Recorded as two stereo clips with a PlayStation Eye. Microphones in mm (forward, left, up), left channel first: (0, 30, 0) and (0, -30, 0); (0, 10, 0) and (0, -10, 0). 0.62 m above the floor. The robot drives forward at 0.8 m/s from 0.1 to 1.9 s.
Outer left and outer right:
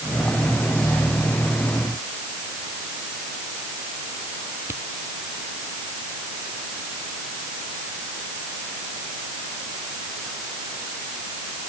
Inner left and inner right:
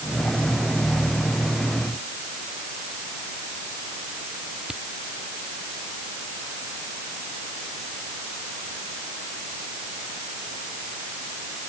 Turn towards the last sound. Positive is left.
turn(degrees=-40)  # may be behind; listen again after turning